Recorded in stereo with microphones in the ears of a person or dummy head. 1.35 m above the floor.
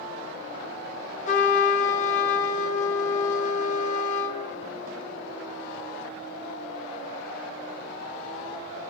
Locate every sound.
1.3 s a trumpet: 45° left (ahead or behind), 1.3 m